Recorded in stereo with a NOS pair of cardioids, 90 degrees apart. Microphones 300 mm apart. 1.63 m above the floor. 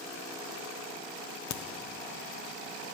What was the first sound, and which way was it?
A crack, 65° left.